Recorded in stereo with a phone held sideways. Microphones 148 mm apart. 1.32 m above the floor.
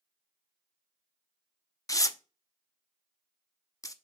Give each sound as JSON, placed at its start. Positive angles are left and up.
{"t": 1.9, "sound": "tearing paper", "side_deg": 25, "distance_m": 0.5}